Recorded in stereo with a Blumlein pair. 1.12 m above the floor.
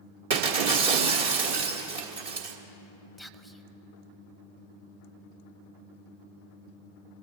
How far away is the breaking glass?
About 1.6 m.